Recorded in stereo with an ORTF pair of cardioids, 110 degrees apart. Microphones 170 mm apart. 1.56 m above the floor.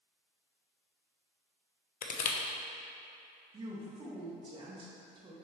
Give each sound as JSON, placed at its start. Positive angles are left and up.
{"t": 2.0, "sound": "crushing", "azimuth_deg": 60, "distance_m": 0.9}
{"t": 3.5, "sound": "a woman speaking", "azimuth_deg": -35, "distance_m": 1.9}